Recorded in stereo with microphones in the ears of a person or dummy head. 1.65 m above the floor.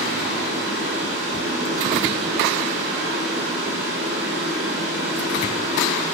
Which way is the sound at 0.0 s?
10° right (ahead or behind).